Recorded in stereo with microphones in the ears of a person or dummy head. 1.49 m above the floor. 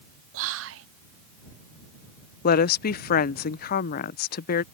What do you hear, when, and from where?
0.3 s whispering: 75° right (ahead or behind)
2.4 s a woman speaking: 50° left (ahead or behind)